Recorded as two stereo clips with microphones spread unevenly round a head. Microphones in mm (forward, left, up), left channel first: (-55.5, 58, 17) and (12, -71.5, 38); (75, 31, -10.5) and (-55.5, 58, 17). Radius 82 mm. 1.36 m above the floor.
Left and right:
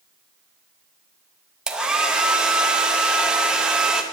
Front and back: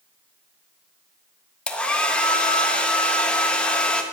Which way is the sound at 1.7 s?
115° right.